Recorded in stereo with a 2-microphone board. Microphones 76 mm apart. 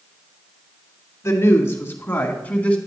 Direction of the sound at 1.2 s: 40° left (ahead or behind).